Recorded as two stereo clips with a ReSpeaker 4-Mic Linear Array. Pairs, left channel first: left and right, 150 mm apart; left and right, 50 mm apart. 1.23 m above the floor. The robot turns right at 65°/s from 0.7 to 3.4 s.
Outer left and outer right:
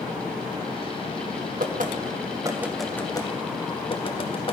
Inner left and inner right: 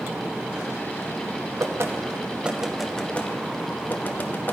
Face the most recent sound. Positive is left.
turn(degrees=35)  # may be behind; listen again after turning